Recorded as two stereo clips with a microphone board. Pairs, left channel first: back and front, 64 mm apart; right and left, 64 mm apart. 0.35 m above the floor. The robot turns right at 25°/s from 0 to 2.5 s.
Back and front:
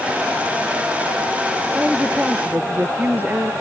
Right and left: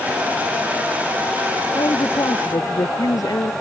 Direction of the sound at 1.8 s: 85° right.